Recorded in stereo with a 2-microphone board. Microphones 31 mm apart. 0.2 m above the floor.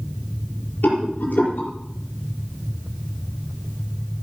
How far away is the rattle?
About 5.5 m.